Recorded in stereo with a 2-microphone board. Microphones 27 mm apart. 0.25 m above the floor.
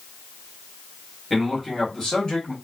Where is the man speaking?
10° left (ahead or behind), 1.2 m; by 2.5 s 40° left (ahead or behind), 1.4 m.